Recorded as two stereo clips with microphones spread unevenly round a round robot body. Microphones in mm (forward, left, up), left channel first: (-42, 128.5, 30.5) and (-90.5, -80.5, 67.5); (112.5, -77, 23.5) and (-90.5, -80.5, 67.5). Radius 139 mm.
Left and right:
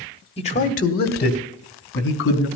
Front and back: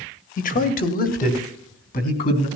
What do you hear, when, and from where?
0.4 s a man speaking: 25° left, 1.4 m; by 2.5 s 50° left, 3.5 m